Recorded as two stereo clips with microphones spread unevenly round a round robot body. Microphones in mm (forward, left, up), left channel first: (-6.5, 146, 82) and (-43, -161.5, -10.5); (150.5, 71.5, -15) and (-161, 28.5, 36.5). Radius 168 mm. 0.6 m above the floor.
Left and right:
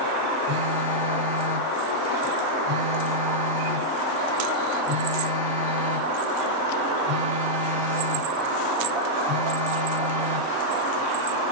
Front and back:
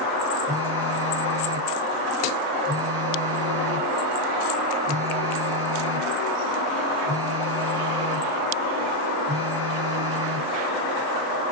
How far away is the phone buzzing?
About 4.5 m.